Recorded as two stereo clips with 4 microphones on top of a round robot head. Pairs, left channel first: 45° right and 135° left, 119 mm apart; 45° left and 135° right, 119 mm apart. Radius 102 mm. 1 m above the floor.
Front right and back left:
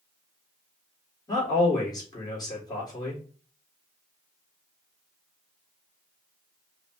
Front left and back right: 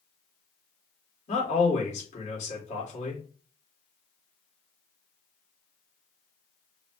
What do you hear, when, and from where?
1.3 s a man speaking: 15° left, 2.5 m